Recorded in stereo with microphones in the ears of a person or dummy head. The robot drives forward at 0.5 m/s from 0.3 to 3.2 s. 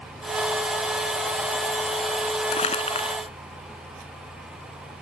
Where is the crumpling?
30° left (ahead or behind); by 3.2 s 25° left (ahead or behind).